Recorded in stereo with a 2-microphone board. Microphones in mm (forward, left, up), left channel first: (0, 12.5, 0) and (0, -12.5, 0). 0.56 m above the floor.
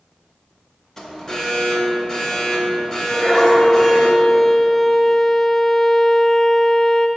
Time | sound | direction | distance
1.0 | an alarm | 20° left (ahead or behind) | 1.1 m
3.1 | a violin | 10° left (ahead or behind) | 0.6 m